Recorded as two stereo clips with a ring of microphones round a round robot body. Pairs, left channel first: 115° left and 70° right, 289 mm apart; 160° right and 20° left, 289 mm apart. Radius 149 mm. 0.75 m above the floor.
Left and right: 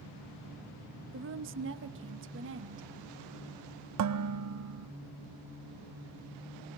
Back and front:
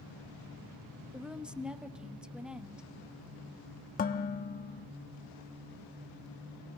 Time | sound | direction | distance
1.1 | a woman speaking | 65° right | 1.0 m
4.0 | dishes clattering | 95° right | 0.8 m